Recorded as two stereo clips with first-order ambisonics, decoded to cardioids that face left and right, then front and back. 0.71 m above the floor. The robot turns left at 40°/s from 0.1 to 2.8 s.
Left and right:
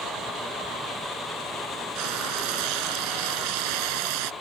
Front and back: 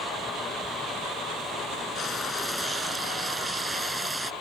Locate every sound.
1.9 s frying: 65° right; by 4.3 s 100° right